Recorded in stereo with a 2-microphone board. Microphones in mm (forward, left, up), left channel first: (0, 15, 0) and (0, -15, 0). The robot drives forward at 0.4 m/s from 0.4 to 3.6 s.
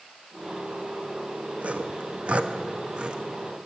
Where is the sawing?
45° right (ahead or behind), 0.6 m; by 3.2 s 30° right (ahead or behind), 0.9 m.